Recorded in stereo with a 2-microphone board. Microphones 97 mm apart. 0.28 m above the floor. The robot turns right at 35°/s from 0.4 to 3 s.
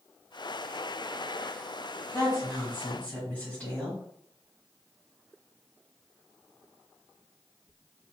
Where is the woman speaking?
130° left, 1.7 m; by 4.0 s 160° left, 1.7 m.